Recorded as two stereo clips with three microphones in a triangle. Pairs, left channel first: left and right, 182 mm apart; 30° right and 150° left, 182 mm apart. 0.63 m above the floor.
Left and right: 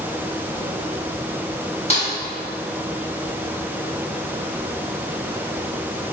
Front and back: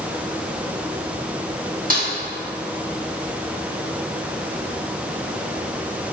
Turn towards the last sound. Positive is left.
turn(degrees=130)